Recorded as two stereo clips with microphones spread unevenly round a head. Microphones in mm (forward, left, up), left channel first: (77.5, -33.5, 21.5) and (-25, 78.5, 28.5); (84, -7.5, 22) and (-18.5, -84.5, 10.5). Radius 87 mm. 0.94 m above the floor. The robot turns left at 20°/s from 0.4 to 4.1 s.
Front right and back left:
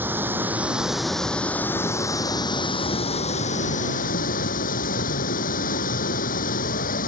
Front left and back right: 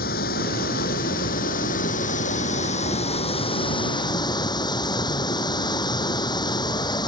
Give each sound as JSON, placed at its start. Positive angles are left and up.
{"t": 0.0, "sound": "running water", "azimuth_deg": 55}